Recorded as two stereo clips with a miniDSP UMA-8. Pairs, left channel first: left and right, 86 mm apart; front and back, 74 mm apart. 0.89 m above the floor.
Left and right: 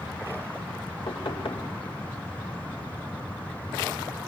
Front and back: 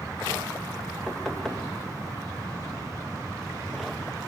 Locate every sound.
1.1 s knocking: 85° left, 2.5 m